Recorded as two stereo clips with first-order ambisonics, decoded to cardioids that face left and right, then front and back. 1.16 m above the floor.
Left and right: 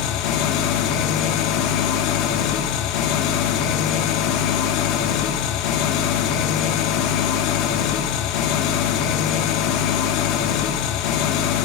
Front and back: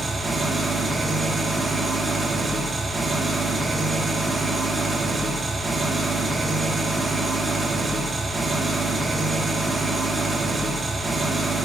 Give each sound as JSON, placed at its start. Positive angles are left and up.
{"t": 0.0, "sound": "an engine running", "azimuth_deg": 100, "distance_m": 1.2}